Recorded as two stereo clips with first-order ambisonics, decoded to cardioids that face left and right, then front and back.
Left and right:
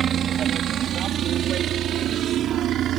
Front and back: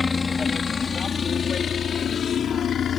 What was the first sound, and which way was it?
A helicopter, 60° right.